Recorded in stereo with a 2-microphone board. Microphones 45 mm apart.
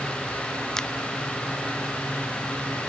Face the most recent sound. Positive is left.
turn(degrees=10)  # may be behind; listen again after turning